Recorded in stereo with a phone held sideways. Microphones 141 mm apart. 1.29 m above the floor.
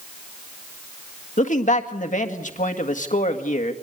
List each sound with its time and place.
1.4 s a man speaking: 65° left (ahead or behind), 1.8 m